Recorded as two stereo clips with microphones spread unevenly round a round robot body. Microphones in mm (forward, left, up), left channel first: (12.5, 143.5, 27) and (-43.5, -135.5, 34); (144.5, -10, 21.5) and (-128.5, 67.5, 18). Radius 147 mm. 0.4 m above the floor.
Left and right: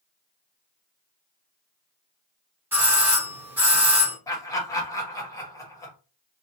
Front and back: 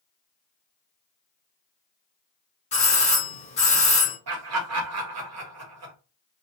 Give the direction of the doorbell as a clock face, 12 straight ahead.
1 o'clock.